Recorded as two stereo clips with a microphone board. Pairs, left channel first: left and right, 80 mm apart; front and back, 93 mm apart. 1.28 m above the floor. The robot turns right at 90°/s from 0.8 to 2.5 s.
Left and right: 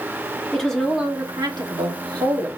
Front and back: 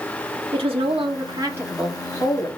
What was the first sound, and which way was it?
A woman speaking, 175° left.